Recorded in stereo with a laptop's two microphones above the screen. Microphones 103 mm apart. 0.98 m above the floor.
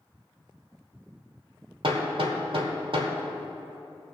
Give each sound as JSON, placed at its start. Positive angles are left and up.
{"t": 1.8, "sound": "hammering", "side_deg": -65, "distance_m": 1.4}